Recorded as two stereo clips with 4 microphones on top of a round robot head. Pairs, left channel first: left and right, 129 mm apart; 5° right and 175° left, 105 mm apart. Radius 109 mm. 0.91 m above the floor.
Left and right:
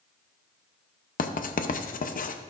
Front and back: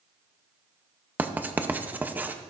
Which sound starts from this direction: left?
Writing, at 1.2 s.